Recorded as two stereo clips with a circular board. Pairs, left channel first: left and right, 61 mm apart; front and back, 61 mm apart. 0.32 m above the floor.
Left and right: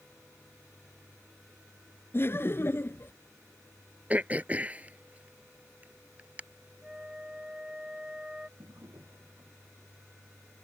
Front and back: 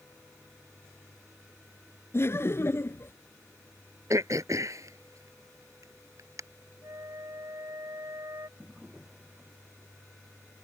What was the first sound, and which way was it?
Laughter, 45° left.